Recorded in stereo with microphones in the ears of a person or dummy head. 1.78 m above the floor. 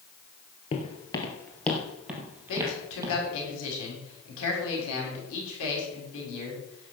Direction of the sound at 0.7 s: 35° left (ahead or behind).